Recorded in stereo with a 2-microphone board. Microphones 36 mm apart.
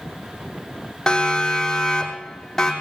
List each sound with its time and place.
1.1 s a siren: 20° left (ahead or behind), 6.5 m; by 2.7 s 15° left (ahead or behind), 7.5 m